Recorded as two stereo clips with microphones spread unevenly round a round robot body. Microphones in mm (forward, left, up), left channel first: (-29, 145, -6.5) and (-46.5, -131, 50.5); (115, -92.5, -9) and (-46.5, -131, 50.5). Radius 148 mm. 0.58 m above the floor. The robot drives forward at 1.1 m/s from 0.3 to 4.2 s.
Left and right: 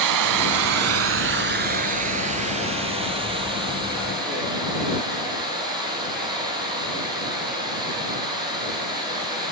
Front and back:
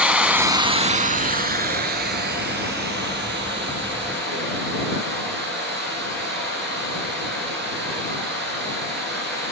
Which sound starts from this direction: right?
Running water, at 0.0 s.